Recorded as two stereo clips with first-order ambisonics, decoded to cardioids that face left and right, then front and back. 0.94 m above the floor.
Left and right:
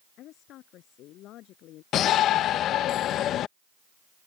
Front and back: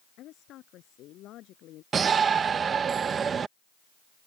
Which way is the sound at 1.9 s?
120° left.